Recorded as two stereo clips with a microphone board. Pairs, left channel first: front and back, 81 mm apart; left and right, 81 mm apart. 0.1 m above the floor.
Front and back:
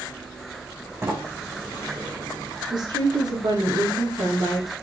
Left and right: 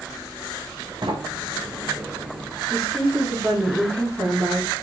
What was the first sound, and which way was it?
A sliding door, 120° right.